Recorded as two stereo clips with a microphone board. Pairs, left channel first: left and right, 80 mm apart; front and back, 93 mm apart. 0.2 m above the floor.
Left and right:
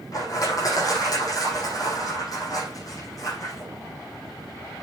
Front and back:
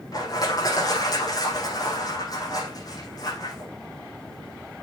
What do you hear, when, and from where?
0.1 s crushing: 50° left, 6.5 m